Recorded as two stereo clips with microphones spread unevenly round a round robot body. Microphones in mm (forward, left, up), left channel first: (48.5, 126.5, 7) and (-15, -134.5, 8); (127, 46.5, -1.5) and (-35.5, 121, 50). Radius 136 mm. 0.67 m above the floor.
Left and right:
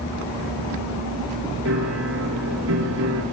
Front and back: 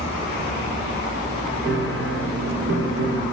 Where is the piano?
150° right, 6.5 m.